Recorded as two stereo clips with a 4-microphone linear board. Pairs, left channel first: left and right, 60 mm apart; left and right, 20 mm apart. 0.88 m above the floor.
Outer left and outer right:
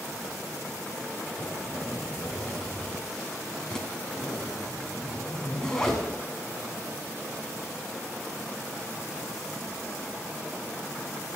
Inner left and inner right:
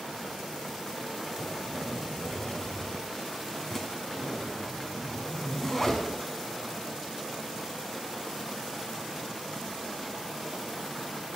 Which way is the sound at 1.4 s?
10° left (ahead or behind).